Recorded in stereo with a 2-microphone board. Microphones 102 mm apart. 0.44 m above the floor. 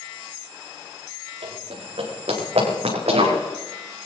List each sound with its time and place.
1.4 s running footsteps: 80° right, 7 m